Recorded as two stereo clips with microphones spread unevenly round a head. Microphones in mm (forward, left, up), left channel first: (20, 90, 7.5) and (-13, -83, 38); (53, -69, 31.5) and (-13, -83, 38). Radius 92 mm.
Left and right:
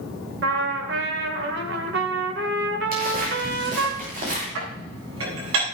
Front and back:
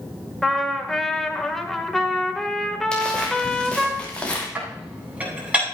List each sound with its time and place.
0.4 s a trumpet: 70° right, 2 m
2.9 s footsteps: 60° right, 7 m; by 4.5 s 55° right, 6.5 m
4.5 s dishes clattering: 100° right, 8.5 m